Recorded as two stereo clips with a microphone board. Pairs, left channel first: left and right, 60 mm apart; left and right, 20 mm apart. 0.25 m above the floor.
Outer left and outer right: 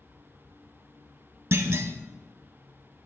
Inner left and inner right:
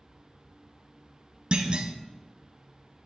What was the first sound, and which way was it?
A clunk, 50° right (ahead or behind).